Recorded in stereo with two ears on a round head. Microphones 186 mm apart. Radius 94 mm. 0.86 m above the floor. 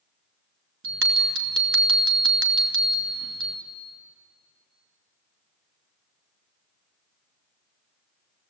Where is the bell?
60° right (ahead or behind), 2 m.